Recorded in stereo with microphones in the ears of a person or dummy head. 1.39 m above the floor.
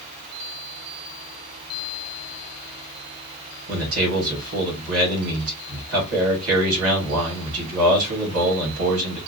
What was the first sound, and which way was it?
A man speaking, 80° right.